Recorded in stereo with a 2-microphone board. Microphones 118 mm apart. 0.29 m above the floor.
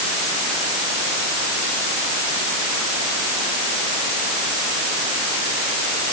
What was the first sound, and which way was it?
Only background noise.